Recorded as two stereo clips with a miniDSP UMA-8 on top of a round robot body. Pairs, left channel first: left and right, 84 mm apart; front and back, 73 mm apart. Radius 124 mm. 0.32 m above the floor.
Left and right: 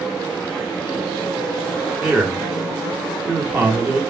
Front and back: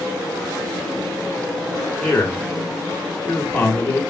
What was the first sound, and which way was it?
A man speaking, 50° right.